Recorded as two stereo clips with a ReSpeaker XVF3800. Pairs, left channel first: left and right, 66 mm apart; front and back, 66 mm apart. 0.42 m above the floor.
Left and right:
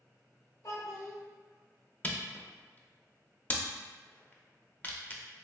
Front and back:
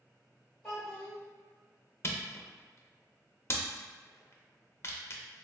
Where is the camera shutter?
35° left, 0.6 m.